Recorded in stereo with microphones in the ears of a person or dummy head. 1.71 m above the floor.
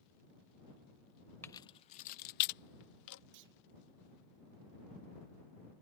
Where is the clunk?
65° right (ahead or behind).